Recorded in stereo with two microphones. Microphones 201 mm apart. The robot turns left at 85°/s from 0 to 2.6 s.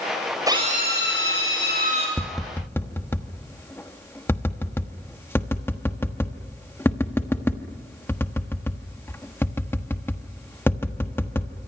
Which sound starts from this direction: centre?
Tapping, at 2.2 s.